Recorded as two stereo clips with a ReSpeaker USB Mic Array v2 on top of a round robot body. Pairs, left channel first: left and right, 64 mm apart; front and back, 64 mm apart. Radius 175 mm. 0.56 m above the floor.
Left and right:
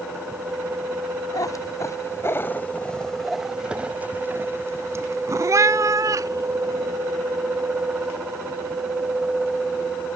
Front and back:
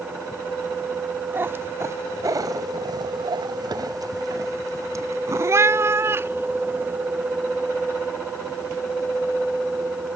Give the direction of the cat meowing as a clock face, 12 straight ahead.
8 o'clock.